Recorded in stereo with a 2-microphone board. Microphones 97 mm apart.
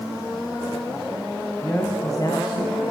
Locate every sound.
1.6 s a man speaking: 20° left (ahead or behind), 2.5 m; by 2.8 s 50° left (ahead or behind), 3.5 m